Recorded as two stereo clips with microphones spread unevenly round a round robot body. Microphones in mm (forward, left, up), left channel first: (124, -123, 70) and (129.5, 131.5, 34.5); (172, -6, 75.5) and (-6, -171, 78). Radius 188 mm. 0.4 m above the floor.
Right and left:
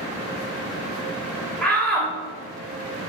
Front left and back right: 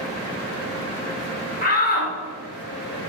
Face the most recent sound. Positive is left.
turn(degrees=0)